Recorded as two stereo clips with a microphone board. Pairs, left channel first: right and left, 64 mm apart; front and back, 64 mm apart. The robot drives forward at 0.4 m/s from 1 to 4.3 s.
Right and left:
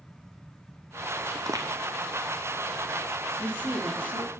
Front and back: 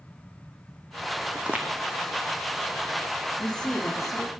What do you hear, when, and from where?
1.4 s footsteps: 105° left, 0.6 m; by 1.7 s 115° left, 0.7 m
3.4 s a man speaking: 60° left, 1.1 m; by 4.3 s 100° left, 1.1 m